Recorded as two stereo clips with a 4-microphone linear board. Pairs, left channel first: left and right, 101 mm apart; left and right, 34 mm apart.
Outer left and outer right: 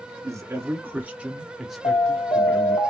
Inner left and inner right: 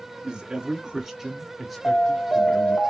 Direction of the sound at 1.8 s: 65° left (ahead or behind).